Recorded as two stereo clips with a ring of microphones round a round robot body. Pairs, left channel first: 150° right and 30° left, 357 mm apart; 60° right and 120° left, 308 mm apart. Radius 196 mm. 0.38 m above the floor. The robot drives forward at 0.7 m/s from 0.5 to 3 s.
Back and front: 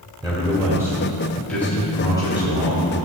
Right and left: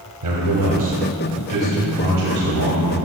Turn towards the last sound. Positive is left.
turn(degrees=155)